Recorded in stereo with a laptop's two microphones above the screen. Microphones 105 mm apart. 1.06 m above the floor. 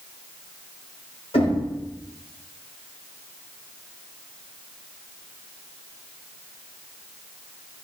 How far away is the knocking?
About 3.5 m.